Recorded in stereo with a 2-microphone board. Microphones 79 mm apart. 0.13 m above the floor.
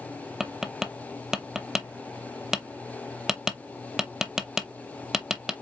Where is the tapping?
5° right (ahead or behind), 0.7 m.